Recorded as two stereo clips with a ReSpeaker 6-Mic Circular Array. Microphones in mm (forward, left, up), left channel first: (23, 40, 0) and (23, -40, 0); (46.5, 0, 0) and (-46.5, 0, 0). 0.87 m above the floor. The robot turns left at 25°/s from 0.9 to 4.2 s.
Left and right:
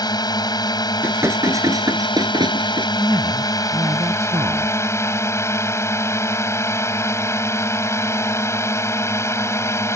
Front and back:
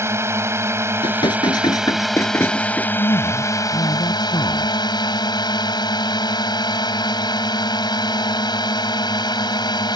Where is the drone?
120° left; by 10.0 s 35° left.